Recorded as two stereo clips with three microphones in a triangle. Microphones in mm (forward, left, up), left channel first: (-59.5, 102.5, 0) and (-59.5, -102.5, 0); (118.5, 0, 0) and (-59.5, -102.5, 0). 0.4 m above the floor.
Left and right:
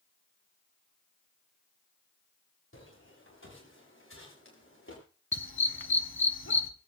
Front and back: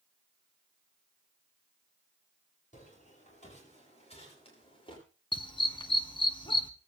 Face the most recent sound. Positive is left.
turn(degrees=95)